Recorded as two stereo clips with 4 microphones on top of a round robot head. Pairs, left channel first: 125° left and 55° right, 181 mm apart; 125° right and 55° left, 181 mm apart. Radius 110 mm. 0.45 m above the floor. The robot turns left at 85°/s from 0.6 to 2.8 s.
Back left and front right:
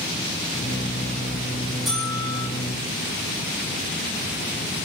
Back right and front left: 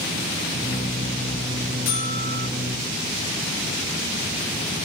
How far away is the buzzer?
About 6 m.